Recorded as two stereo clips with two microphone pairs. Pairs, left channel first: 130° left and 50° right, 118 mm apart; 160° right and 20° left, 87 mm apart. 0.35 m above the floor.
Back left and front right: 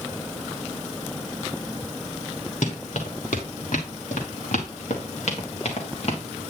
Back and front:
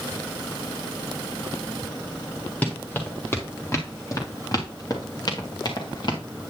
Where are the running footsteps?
125° left, 3 m; by 6.2 s 165° left, 3.5 m.